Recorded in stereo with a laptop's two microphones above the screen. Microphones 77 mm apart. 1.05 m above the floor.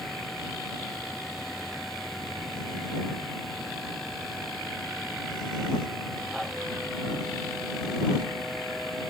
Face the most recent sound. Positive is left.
turn(degrees=0)  # may be behind; listen again after turning